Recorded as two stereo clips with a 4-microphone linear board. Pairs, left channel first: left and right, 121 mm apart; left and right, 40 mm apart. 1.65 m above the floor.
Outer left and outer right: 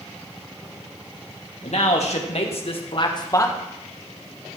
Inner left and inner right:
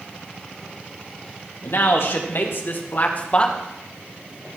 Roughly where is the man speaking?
Left.